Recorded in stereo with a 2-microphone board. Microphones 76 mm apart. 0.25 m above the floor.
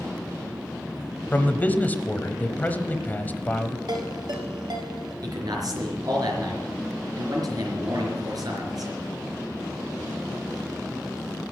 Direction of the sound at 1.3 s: 25° left (ahead or behind).